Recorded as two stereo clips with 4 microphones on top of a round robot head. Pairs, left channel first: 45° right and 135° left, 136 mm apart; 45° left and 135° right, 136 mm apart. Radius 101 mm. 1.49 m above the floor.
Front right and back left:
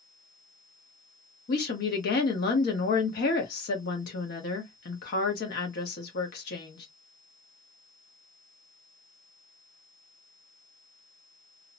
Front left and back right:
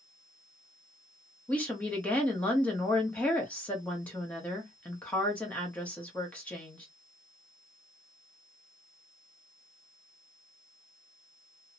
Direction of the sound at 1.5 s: 35° right.